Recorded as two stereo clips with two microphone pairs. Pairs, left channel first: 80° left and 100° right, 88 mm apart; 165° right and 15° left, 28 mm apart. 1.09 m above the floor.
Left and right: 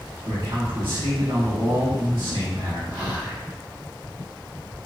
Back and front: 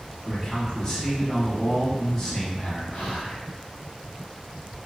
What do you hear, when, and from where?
0.2 s a man speaking: 105° right, 1.4 m
2.9 s whispering: 145° right, 1.2 m